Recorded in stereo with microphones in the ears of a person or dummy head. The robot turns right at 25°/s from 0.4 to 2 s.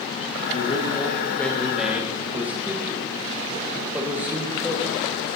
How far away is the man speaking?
About 1.7 m.